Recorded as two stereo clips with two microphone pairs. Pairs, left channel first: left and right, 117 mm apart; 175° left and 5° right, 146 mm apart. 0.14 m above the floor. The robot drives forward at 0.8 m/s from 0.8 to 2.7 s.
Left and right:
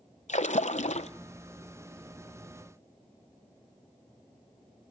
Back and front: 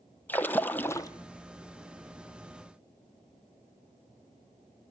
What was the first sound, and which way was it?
A splash, 95° left.